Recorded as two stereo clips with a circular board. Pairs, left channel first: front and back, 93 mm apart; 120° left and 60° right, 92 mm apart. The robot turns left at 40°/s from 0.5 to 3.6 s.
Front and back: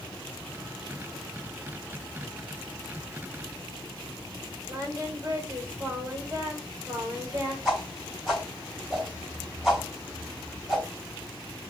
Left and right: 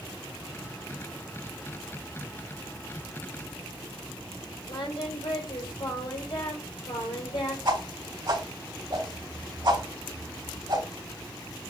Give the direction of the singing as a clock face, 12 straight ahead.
8 o'clock.